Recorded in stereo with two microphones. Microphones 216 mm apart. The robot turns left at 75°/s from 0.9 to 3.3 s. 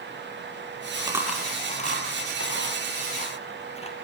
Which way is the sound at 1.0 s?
25° right (ahead or behind).